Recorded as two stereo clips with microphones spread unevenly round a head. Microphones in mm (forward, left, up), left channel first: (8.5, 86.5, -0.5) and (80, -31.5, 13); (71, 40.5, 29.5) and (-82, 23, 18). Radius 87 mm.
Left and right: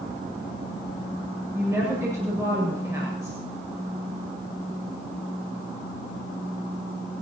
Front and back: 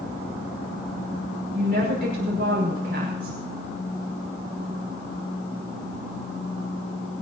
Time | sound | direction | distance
1.5 | a woman speaking | 135° right | 6.5 m